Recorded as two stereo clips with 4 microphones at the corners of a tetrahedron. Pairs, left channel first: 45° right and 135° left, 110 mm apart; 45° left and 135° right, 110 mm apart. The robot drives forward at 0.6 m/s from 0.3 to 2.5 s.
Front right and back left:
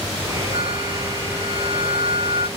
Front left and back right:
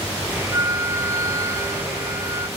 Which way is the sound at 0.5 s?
165° left.